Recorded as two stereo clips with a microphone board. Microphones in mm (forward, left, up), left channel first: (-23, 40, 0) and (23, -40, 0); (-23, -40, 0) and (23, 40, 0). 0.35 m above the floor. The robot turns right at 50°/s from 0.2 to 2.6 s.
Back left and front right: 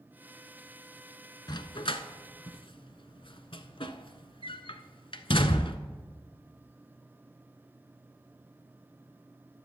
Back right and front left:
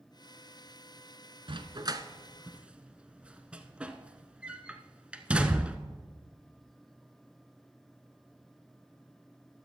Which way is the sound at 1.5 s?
80° left.